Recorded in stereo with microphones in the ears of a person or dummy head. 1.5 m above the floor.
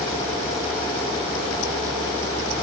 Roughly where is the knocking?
No knocking in this recording.